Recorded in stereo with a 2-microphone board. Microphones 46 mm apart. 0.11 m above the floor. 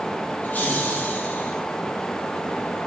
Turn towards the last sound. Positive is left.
turn(degrees=40)  # may be behind; listen again after turning